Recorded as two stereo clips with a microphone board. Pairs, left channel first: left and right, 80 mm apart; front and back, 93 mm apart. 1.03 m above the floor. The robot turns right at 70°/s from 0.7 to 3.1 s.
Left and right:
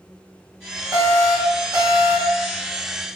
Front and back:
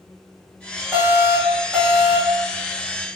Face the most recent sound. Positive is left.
turn(degrees=25)